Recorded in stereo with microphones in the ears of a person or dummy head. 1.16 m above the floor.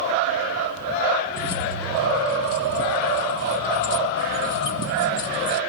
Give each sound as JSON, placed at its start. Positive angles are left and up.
{"t": 1.3, "sound": "keys jangling", "side_deg": 70, "distance_m": 1.2}